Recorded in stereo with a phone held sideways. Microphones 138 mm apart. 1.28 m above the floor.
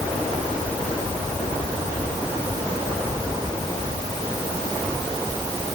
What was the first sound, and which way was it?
Only background noise.